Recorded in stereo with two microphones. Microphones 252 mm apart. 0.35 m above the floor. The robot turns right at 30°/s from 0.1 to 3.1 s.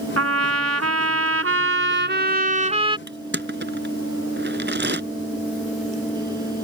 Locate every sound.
0.2 s a trumpet: 105° right; by 3.0 s 20° right
3.1 s crushing: 45° right (ahead or behind)